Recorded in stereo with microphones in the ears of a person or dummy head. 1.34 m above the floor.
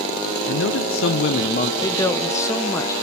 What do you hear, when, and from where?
0.5 s a man speaking: 65° left (ahead or behind), 0.9 m; by 1.7 s 45° left (ahead or behind), 1.0 m
1.8 s a woman speaking: 20° left (ahead or behind), 0.6 m